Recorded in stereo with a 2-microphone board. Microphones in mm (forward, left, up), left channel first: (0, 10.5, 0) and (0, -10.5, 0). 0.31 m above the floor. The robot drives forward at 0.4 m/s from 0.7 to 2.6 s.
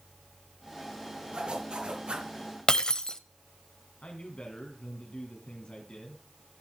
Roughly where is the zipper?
Right.